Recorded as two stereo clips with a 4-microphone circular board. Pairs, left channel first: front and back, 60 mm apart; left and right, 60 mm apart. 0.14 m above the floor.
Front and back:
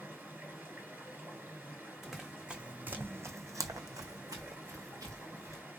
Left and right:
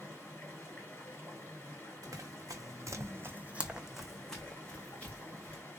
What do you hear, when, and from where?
0.0 s running water: 135° left, 1.9 m
2.0 s running footsteps: 90° right, 0.8 m; by 5.6 s 150° left, 1.3 m